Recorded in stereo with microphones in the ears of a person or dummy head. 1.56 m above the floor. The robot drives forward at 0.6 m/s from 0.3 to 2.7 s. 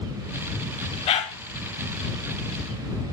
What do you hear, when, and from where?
1.1 s a dog barking: 35° left (ahead or behind), 3 m